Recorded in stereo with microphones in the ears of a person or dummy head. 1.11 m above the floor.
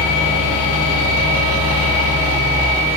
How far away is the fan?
About 2 m.